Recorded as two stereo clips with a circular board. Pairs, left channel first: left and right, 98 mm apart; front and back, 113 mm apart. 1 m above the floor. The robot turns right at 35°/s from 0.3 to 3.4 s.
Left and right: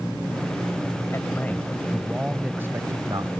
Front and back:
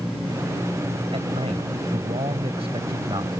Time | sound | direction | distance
1.1 | a man speaking | 150° left | ?